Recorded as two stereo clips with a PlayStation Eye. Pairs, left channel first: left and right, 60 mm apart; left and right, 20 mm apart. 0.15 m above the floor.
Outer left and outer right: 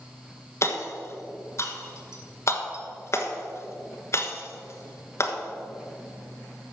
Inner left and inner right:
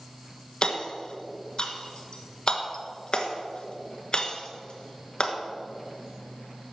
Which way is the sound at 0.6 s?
50° left (ahead or behind).